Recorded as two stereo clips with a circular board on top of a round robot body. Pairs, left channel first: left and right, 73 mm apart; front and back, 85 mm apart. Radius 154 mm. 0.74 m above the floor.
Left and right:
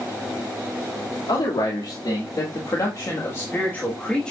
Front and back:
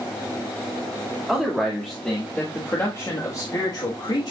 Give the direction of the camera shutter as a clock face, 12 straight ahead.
I don't hear a camera shutter.